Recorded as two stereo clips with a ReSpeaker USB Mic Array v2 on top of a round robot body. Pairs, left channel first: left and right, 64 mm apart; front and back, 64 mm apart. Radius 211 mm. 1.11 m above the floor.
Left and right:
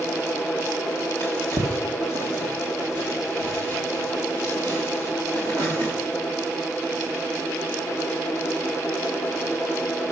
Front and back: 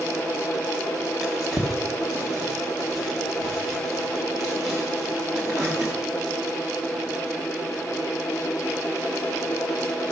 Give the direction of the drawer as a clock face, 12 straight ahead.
3 o'clock.